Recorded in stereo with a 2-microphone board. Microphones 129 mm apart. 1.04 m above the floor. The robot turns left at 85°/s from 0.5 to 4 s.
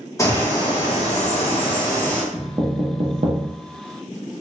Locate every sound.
0.2 s a bird: 150° left, 1.0 m; by 2.2 s 5° left, 1.0 m
2.3 s knocking: 5° right (ahead or behind), 0.7 m; by 3.5 s 65° right (ahead or behind), 0.7 m